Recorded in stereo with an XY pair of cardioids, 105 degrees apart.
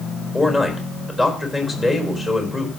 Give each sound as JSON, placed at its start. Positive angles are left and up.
{"t": 0.3, "sound": "a man speaking", "azimuth_deg": 25, "distance_m": 4.5}